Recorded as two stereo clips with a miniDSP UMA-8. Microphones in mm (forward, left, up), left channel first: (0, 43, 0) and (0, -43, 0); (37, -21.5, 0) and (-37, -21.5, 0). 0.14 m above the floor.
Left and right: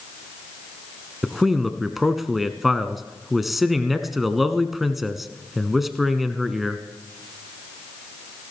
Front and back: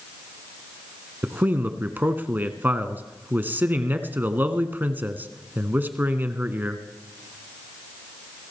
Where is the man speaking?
175° right, 1.1 m.